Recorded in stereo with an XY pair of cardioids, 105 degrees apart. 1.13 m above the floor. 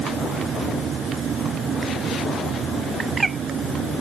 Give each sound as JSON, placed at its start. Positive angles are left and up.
{"t": 0.0, "sound": "a fan", "azimuth_deg": -50}
{"t": 3.0, "sound": "a bird", "azimuth_deg": -30}